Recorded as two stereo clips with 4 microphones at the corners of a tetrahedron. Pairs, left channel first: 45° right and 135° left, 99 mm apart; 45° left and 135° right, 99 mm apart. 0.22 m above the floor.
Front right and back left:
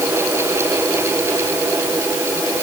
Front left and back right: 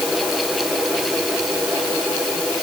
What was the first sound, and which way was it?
Only background noise.